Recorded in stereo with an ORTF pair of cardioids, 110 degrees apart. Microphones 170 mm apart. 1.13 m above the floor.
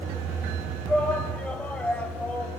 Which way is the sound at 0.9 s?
5° left.